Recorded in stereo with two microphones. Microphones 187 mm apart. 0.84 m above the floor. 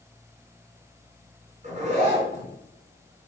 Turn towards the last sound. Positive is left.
turn(degrees=-45)  # may be behind; listen again after turning